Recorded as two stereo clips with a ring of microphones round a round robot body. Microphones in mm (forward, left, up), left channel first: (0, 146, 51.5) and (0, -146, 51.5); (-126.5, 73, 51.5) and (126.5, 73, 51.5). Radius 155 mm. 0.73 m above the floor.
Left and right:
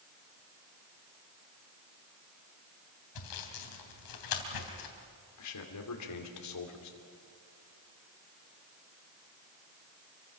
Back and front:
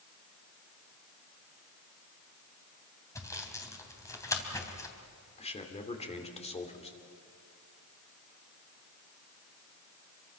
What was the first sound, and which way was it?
Sawing, 100° left.